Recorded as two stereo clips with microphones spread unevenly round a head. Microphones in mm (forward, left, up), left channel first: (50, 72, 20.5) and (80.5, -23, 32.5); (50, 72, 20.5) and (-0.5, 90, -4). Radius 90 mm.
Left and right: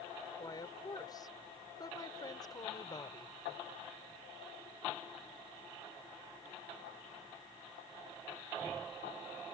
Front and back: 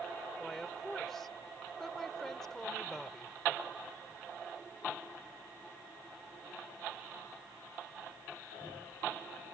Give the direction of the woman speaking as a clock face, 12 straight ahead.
10 o'clock.